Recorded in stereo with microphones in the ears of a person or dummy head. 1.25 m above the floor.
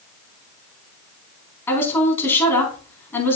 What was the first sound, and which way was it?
A woman speaking, 15° left (ahead or behind).